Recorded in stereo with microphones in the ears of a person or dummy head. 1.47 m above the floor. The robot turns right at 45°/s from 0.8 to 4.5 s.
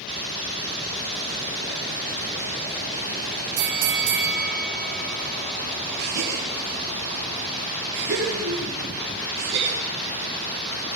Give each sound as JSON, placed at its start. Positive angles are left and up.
{"t": 3.6, "sound": "a bell", "azimuth_deg": -100, "distance_m": 3.5}
{"t": 6.0, "sound": "a gasp", "side_deg": -65, "distance_m": 8.5}